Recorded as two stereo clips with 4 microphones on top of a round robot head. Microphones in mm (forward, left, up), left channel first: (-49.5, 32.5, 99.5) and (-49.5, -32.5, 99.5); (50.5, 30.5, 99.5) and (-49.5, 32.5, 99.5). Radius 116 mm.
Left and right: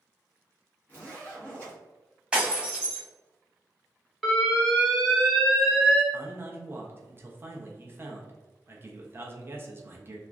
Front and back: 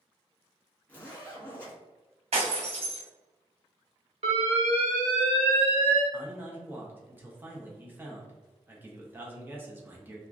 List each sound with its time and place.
0.9 s a zipper: 55° left, 1.3 m
2.3 s breaking glass: 170° right, 1.2 m
4.2 s an alarm: straight behind, 1.0 m
6.1 s a man speaking: 120° right, 0.7 m